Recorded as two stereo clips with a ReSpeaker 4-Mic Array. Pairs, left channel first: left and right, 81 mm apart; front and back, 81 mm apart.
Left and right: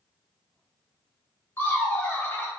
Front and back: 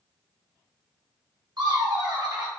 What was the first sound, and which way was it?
Laughter, 150° left.